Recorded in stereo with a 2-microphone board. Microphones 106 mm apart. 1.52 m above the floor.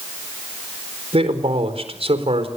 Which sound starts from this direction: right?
A man speaking, at 1.1 s.